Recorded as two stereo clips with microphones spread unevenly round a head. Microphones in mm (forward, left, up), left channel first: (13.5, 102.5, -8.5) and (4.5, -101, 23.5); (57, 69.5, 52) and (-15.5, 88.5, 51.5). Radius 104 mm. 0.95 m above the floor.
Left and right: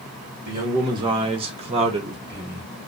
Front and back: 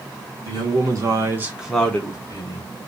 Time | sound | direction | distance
0.5 | a man speaking | 170° right | 1.2 m